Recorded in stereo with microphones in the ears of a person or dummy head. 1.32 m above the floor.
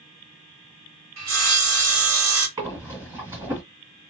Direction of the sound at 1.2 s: 70° right (ahead or behind).